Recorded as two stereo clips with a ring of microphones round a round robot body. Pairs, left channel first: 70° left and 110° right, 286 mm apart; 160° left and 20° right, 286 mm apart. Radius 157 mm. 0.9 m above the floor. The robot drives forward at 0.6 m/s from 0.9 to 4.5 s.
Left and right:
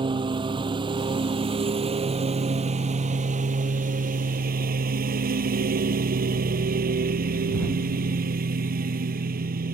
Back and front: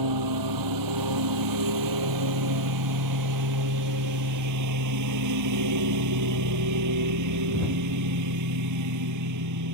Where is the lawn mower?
40° right; by 9.8 s 50° right.